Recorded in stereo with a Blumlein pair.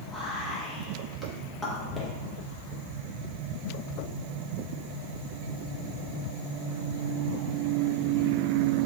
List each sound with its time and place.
0.1 s whispering: 5° left, 0.6 m